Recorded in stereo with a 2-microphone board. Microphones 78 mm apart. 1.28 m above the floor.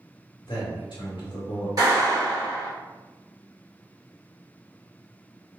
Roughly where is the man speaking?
Left.